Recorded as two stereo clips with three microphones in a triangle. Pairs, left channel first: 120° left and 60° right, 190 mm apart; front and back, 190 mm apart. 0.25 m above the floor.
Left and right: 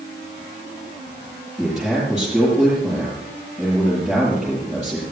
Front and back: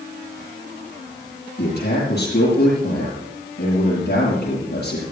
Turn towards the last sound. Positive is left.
turn(degrees=30)